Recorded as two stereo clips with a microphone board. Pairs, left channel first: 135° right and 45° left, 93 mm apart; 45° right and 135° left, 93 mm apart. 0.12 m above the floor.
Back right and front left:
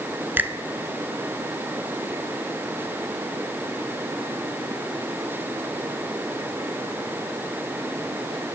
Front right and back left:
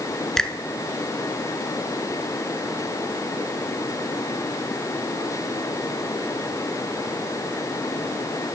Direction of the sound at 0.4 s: 25° left.